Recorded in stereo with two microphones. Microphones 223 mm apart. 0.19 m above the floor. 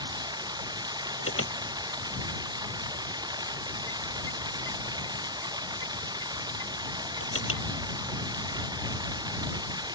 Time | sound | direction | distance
0.0 | running water | 20° right (ahead or behind) | ?
1.2 | an alarm | 75° left (ahead or behind) | ?